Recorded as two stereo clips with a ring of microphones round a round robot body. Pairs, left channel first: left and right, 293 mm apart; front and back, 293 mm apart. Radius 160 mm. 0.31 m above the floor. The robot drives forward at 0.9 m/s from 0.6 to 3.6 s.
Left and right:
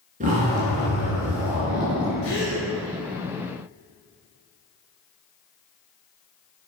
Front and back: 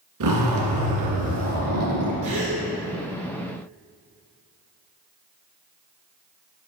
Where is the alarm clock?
I don't hear an alarm clock.